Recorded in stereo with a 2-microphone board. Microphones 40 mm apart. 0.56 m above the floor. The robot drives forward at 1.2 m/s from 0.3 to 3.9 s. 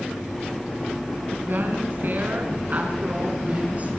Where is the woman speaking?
55° right (ahead or behind), 4.5 m; by 3.9 s 35° right (ahead or behind), 7 m.